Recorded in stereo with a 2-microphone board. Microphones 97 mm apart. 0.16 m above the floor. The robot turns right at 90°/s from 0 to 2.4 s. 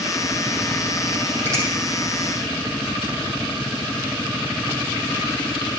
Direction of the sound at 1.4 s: 25° right (ahead or behind).